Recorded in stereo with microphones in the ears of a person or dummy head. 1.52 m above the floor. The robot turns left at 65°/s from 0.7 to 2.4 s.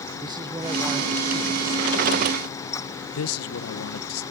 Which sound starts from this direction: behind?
A man speaking, at 0.2 s.